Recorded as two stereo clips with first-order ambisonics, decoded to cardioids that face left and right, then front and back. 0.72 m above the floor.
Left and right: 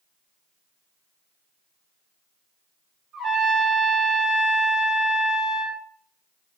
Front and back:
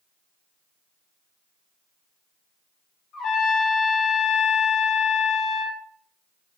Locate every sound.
3.1 s a trumpet: 20° right, 1.8 m